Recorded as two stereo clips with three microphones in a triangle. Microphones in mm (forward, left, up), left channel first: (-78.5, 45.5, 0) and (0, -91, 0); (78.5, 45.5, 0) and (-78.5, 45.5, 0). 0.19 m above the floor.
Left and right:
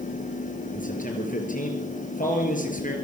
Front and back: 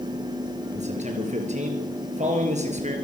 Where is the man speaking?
145° left, 4.5 m.